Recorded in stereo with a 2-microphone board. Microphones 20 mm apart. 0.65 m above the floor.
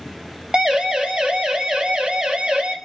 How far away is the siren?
About 6 m.